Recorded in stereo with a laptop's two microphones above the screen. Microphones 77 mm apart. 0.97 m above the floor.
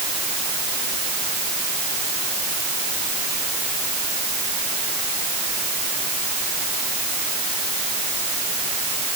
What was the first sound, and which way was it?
Only background noise.